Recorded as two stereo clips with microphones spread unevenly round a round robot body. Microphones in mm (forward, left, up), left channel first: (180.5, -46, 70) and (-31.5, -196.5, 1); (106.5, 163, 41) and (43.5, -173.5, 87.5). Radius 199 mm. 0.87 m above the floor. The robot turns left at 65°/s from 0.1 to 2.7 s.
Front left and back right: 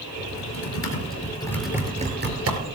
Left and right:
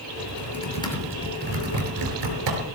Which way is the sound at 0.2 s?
45° left.